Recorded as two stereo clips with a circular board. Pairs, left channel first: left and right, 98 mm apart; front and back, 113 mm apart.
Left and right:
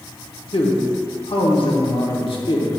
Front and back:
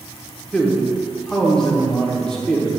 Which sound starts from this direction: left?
A man speaking, at 0.5 s.